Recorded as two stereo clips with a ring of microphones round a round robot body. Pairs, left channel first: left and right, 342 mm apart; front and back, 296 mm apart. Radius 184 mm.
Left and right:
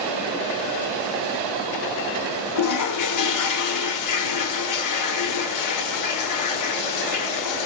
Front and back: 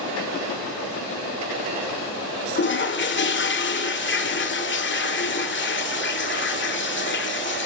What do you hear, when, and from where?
2.5 s a toilet flushing: 50° left, 2 m